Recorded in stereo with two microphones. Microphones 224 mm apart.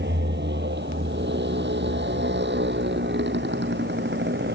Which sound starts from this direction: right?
A motorcycle, at 0.0 s.